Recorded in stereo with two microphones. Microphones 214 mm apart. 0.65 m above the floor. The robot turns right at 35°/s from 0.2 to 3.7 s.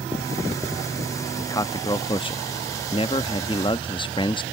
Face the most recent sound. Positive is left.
turn(degrees=25)  # may be behind; listen again after turning